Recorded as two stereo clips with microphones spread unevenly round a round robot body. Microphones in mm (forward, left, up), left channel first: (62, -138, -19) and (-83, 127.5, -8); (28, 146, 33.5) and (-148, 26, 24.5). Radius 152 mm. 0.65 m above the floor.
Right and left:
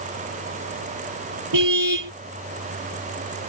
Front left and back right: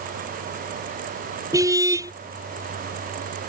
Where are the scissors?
No scissors in this recording.